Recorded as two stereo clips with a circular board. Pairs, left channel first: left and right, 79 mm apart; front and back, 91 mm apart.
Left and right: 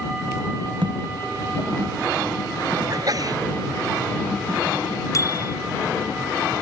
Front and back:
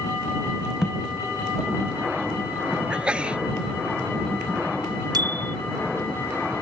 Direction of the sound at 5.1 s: 135° left.